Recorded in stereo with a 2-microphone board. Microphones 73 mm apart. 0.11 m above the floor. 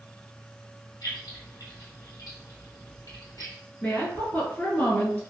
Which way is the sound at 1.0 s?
55° left (ahead or behind).